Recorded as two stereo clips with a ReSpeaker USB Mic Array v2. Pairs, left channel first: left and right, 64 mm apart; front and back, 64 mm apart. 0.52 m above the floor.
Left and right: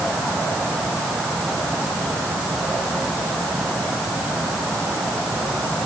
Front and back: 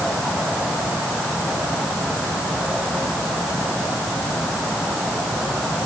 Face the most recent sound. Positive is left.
No sound to turn to.